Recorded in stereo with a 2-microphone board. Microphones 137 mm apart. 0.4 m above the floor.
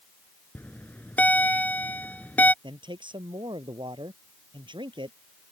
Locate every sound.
0.6 s a bell: 10° left (ahead or behind)
2.6 s a man speaking: 35° right (ahead or behind)